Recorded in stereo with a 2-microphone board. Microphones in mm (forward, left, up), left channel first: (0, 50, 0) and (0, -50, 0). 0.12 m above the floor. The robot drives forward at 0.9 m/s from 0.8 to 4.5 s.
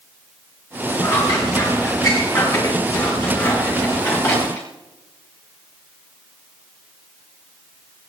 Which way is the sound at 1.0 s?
45° left (ahead or behind).